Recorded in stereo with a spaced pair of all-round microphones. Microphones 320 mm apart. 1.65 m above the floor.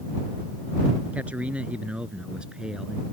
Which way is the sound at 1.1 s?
5° right (ahead or behind).